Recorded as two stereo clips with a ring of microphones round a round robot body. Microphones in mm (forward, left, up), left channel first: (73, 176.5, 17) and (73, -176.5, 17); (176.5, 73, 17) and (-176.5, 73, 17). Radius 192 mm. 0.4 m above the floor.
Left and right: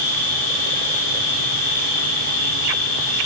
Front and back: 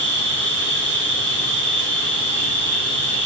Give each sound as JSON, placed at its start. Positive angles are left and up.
{"t": 0.0, "sound": "an insect", "azimuth_deg": 120, "distance_m": 5.0}